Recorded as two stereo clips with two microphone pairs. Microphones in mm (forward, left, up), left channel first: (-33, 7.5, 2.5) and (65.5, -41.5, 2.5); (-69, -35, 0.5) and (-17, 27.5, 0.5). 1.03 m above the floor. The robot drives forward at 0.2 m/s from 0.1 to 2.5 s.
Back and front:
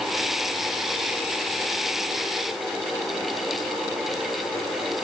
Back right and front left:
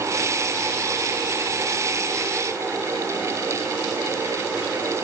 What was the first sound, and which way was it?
Only background noise.